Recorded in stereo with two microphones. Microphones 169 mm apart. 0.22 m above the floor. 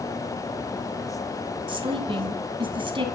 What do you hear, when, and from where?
1.7 s a woman speaking: 30° right (ahead or behind), 1.1 m